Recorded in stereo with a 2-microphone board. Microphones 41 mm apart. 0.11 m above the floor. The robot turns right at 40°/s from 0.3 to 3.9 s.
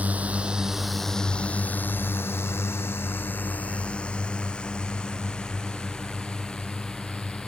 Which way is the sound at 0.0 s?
35° right (ahead or behind).